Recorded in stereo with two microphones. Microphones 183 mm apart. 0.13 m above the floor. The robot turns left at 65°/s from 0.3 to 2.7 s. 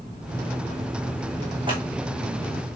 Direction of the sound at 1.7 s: 25° right (ahead or behind).